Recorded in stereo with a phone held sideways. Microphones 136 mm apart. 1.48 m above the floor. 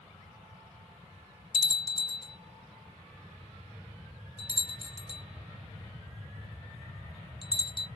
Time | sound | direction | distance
1.5 | a bell | 35° left (ahead or behind) | 0.8 m